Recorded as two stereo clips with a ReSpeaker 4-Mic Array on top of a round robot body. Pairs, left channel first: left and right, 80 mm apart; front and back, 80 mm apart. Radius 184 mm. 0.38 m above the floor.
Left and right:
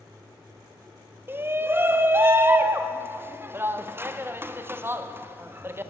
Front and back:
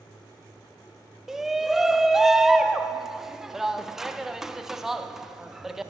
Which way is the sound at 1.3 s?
100° right.